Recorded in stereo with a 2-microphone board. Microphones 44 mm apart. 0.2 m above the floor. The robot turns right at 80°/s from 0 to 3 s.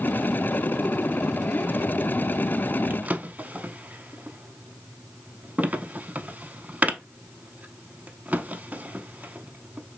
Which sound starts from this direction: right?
A drawer, at 2.9 s.